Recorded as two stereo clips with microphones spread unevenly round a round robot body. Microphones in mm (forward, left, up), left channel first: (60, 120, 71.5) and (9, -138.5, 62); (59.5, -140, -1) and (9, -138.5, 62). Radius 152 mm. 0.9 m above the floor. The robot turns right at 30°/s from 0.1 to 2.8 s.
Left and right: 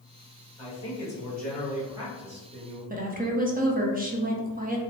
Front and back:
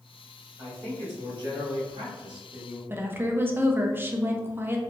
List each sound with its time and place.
0.6 s a man speaking: 145° left, 1.7 m; by 2.8 s 150° right, 1.7 m
2.9 s a woman speaking: 65° right, 0.8 m